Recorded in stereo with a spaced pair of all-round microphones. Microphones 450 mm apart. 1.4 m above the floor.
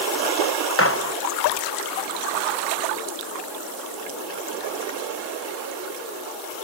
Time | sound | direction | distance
0.8 | a gunshot | 30° left (ahead or behind) | ?